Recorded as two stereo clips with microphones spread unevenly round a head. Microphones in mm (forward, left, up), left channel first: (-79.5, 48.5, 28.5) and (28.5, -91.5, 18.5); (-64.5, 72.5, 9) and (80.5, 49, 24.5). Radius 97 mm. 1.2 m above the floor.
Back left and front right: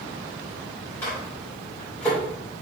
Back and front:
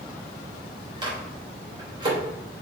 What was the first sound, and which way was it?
A microwave, 50° left.